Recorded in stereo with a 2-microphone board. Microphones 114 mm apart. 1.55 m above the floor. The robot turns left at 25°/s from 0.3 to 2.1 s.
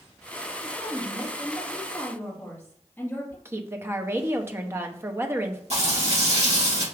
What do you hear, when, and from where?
0.6 s a woman speaking: 155° right, 2 m; by 3.4 s 165° left, 2 m
3.5 s a woman speaking: 20° right (ahead or behind), 0.6 m
5.7 s frying: 65° right (ahead or behind), 2 m